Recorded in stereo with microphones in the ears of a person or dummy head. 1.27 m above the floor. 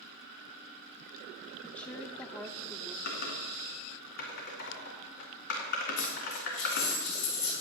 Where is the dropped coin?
60° left (ahead or behind), 4.5 m.